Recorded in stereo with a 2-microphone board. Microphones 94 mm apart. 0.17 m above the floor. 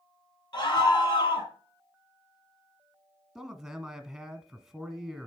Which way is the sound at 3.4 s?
5° right (ahead or behind).